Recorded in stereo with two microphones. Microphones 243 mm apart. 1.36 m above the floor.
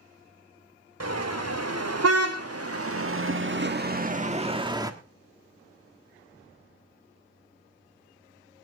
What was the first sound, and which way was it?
A car horn, 80° right.